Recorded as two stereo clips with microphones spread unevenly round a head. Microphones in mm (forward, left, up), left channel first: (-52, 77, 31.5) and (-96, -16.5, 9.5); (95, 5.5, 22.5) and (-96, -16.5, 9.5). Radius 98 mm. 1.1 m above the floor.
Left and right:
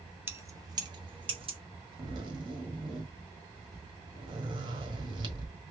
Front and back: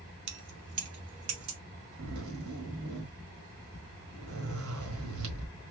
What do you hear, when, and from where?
0.3 s keys jangling: 175° left, 0.9 m; by 1.6 s 150° right, 1.4 m
2.0 s a zipper: 165° right, 1.6 m